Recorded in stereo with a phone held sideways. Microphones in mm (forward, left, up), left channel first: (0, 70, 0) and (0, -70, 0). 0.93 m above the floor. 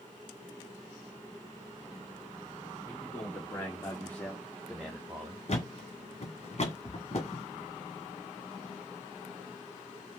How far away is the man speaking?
About 2.5 m.